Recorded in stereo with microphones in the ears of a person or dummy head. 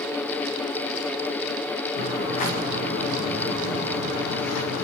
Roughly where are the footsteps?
Left.